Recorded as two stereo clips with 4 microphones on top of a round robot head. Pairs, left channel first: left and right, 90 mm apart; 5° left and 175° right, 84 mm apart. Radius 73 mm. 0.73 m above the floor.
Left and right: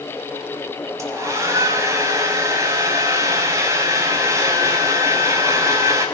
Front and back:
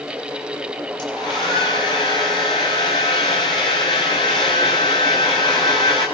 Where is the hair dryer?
30° right, 5.5 m.